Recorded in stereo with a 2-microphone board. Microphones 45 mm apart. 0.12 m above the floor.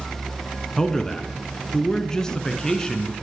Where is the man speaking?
15° left (ahead or behind), 1.1 m.